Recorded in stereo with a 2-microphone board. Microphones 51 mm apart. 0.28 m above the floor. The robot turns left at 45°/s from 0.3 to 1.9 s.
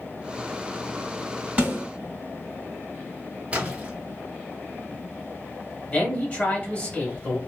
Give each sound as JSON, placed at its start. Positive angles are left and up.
{"t": 1.6, "sound": "a snare drum", "side_deg": -30, "distance_m": 1.9}
{"t": 3.5, "sound": "a splash", "side_deg": -25, "distance_m": 1.1}
{"t": 5.9, "sound": "a man speaking", "side_deg": 30, "distance_m": 1.1}